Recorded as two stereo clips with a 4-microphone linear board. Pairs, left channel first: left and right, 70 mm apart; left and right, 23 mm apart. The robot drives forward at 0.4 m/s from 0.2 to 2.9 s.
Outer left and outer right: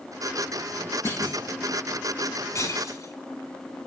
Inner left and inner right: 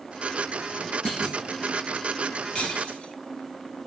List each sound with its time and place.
1.1 s a clunk: 35° left (ahead or behind), 6 m; by 1.4 s 30° left (ahead or behind), 6 m
2.5 s breaking glass: 45° left (ahead or behind), 3.5 m